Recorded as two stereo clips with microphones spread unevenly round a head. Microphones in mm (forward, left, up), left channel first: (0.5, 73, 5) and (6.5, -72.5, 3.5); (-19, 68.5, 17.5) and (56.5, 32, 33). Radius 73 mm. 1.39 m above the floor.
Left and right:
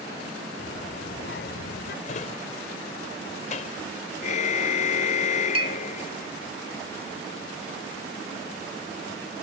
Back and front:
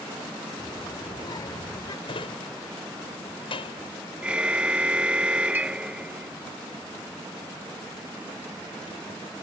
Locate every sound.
0.6 s a child speaking: 110° left; by 1.9 s 115° left
2.0 s a drawer: 135° left
4.2 s a car horn: 50° left
5.5 s a clink: 65° right